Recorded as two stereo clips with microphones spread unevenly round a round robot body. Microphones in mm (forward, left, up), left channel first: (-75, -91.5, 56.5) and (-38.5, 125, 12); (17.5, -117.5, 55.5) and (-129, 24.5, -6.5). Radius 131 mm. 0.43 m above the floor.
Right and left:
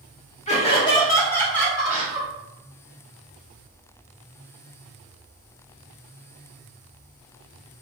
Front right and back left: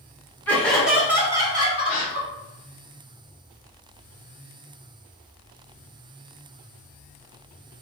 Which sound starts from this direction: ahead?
A gasp, at 1.9 s.